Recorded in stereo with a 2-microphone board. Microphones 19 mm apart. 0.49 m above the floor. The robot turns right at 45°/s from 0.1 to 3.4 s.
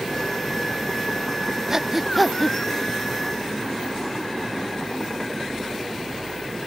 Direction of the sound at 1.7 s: 25° right (ahead or behind).